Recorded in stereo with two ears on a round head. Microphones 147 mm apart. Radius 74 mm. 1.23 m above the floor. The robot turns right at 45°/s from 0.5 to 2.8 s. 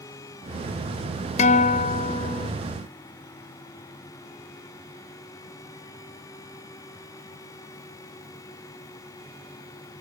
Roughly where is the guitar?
Left.